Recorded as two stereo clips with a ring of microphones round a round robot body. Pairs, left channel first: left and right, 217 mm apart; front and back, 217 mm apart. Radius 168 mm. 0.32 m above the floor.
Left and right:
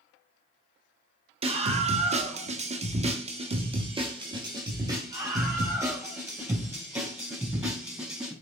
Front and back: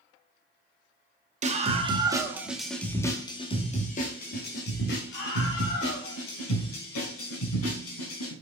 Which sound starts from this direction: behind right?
A scream, at 1.4 s.